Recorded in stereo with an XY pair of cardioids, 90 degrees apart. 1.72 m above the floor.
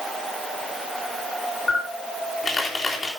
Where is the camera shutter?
30° left, 3.5 m.